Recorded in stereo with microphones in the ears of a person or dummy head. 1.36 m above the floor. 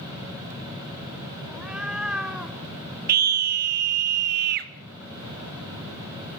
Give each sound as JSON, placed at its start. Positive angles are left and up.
{"t": 1.5, "sound": "a cat meowing", "side_deg": -5, "distance_m": 1.4}
{"t": 3.1, "sound": "a scream", "side_deg": -55, "distance_m": 1.2}